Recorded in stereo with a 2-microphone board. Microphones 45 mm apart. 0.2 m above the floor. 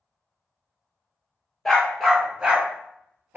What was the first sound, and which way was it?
A dog barking, 5° left (ahead or behind).